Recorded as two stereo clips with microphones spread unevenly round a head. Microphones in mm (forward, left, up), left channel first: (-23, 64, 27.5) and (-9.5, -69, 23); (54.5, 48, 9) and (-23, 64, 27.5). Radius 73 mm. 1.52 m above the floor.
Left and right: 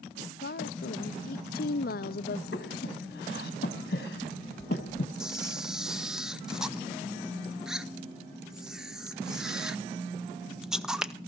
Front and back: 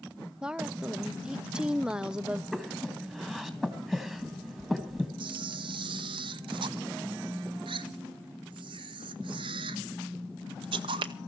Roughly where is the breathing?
Left.